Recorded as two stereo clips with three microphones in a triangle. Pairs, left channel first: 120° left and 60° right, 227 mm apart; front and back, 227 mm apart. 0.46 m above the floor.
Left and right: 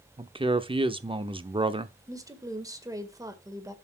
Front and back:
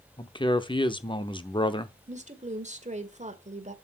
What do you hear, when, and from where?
0.2 s a man speaking: 35° right, 0.7 m
2.1 s a woman speaking: 130° right, 1.7 m